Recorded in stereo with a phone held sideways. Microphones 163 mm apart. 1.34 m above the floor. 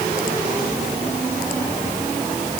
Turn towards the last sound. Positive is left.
No sound to turn to.